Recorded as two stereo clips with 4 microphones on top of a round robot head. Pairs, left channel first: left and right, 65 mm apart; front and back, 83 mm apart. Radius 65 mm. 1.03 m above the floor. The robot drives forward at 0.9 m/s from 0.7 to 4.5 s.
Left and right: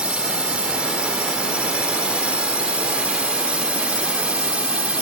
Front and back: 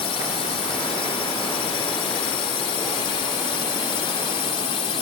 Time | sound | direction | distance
0.0 | a drone | 15° right | ?